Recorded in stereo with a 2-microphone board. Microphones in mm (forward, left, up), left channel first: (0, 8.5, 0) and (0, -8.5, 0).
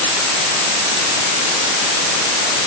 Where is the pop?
I don't hear a pop.